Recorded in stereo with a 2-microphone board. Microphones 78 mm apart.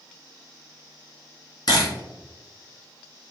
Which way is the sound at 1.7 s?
60° left (ahead or behind).